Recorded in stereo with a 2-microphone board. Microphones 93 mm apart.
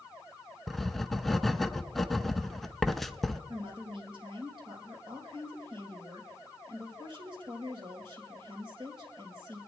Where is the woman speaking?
60° right (ahead or behind), 3.5 m.